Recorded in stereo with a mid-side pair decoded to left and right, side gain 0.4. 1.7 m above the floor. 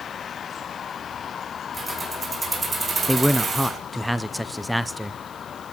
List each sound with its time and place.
1.7 s keys jangling: 35° right, 5 m; by 3.8 s 55° right, 4.5 m
3.1 s a man speaking: straight ahead, 0.8 m